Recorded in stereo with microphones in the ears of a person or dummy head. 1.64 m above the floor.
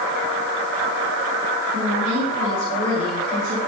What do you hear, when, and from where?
1.7 s a woman speaking: 40° right (ahead or behind), 9.5 m